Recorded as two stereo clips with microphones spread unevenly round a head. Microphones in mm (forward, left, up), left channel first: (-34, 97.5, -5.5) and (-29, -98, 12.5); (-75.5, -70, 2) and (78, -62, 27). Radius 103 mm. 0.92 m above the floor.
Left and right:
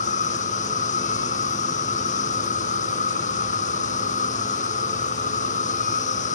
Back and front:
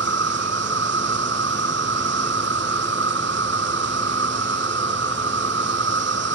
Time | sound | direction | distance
0.0 | an insect | 35° left | ?